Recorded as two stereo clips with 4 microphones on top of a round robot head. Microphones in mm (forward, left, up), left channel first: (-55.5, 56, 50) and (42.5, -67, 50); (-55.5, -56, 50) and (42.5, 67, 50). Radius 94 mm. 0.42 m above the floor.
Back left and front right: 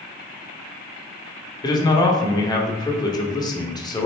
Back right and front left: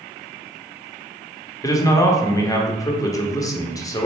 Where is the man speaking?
175° left, 1.0 m.